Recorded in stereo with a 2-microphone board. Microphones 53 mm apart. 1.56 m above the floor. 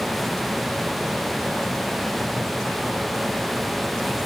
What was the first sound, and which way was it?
Only background noise.